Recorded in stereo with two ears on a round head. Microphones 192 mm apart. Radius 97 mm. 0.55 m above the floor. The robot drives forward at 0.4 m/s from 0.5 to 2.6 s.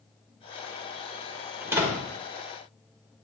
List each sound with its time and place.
1.6 s a door slam: 10° right (ahead or behind), 1.4 m